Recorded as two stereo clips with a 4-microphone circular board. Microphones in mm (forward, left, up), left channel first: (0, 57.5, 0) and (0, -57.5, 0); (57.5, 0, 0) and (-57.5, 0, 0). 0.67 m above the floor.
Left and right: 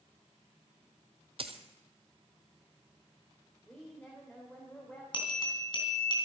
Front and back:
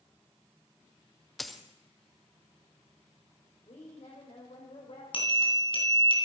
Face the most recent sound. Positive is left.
turn(degrees=40)